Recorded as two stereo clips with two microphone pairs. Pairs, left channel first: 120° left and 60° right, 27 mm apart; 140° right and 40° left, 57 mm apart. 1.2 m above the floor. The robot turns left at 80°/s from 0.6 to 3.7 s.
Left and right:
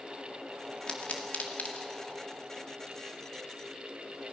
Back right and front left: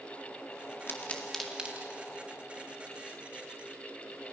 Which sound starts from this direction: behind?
A pop, at 0.9 s.